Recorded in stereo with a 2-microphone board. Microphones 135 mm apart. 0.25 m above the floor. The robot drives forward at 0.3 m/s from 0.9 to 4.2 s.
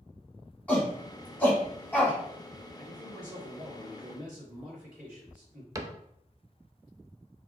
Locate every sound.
0.7 s a shout: 10° left (ahead or behind), 2 m; by 2.2 s 15° left (ahead or behind), 1.9 m
2.8 s a man speaking: 10° right (ahead or behind), 2.5 m; by 5.7 s 5° right (ahead or behind), 3 m
5.8 s a cupboard door: 25° right (ahead or behind), 0.5 m